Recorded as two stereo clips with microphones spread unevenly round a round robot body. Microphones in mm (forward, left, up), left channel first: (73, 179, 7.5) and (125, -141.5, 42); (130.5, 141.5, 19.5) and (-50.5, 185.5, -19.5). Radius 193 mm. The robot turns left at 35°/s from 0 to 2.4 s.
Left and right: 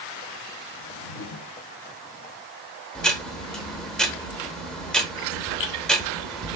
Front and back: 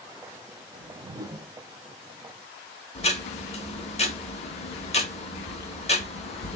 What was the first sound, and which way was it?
A whoosh, 125° left.